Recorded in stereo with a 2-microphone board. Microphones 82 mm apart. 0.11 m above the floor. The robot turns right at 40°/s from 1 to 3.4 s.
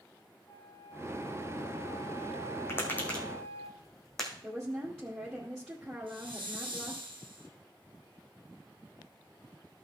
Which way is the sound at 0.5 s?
45° left.